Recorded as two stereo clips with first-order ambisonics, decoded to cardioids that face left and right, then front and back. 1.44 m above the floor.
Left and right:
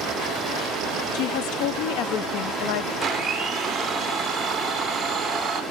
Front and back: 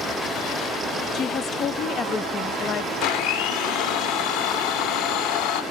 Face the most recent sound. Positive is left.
turn(degrees=-15)